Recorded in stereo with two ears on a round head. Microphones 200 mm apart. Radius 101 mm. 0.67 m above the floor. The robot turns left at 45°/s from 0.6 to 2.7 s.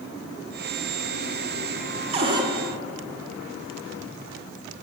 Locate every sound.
2.1 s a cupboard door: 30° right (ahead or behind), 1.6 m; by 2.5 s 15° right (ahead or behind), 1.6 m